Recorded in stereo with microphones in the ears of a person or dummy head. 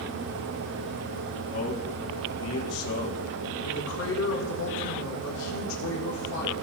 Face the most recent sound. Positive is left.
turn(degrees=70)  # may be behind; listen again after turning